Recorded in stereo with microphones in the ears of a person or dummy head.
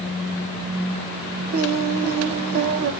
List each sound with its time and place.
1.5 s singing: 50° right (ahead or behind), 0.9 m